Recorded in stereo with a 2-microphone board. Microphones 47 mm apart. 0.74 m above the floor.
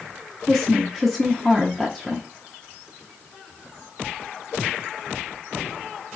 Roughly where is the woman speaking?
Centre.